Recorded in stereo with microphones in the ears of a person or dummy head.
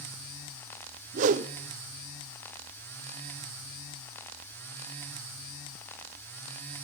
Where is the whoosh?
45° right (ahead or behind), 0.7 m.